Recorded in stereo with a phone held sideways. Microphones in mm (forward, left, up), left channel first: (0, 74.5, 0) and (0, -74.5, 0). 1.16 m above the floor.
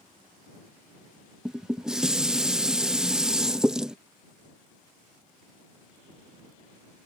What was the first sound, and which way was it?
Dishes clattering, 5° right (ahead or behind).